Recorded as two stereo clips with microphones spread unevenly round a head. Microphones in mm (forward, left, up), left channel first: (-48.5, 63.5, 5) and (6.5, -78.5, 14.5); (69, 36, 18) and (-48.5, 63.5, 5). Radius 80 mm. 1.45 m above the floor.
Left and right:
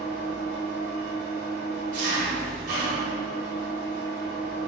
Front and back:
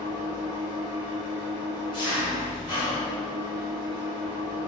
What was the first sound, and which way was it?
An engine running, 95° right.